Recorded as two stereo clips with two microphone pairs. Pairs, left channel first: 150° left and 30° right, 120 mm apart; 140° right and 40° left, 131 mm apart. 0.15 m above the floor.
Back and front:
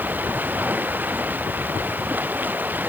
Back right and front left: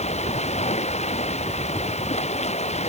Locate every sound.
0.0 s running water: 105° right